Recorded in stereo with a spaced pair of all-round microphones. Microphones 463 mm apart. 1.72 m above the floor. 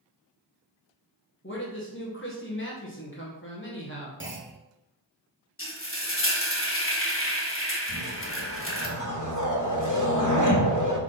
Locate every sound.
1.4 s a man speaking: 25° left (ahead or behind), 1.5 m
4.2 s a clunk: 25° right (ahead or behind), 1.1 m
5.6 s frying: 30° left (ahead or behind), 1.2 m
7.9 s a whoosh: 40° left (ahead or behind), 1.2 m